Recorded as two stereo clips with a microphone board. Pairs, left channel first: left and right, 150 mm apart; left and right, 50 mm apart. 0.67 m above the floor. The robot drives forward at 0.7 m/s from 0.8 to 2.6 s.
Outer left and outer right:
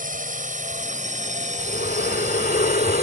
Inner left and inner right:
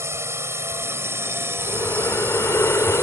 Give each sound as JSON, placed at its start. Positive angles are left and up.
{"t": 0.0, "sound": "a drone", "side_deg": -55}
{"t": 1.6, "sound": "breathing", "side_deg": 70}